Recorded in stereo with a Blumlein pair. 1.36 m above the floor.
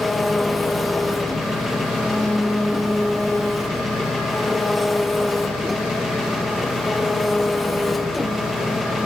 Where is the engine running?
10° left, 0.7 m.